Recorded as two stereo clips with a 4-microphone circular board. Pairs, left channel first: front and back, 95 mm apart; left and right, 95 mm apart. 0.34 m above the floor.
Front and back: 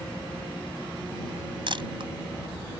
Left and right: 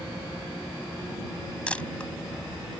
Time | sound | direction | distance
1.7 | a camera shutter | 165° left | ?